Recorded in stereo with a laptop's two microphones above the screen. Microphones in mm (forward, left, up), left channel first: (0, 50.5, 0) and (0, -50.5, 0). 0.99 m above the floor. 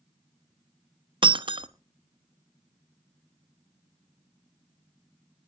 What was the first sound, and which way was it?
Breaking glass, 50° right (ahead or behind).